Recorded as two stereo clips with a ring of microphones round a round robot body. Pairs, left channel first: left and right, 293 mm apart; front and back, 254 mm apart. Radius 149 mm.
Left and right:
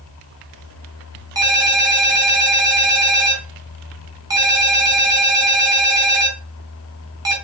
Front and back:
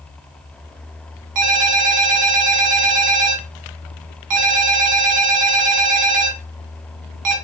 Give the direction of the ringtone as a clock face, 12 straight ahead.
6 o'clock.